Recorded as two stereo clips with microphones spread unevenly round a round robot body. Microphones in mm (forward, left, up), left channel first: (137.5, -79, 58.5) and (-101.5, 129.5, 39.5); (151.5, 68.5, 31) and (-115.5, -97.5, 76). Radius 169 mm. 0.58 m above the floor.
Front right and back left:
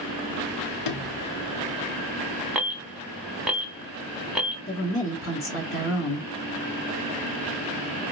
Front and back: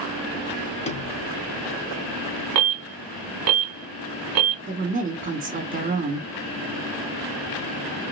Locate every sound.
0.8 s a sliding door: 35° right, 0.8 m
2.5 s an alarm: 135° right, 1.1 m
4.7 s a woman speaking: 80° right, 1.6 m